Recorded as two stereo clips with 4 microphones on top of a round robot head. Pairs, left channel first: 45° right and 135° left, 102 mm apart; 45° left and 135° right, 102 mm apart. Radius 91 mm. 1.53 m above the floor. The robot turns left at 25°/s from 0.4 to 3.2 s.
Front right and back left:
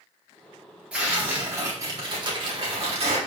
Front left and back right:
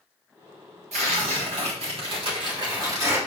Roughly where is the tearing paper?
Behind right.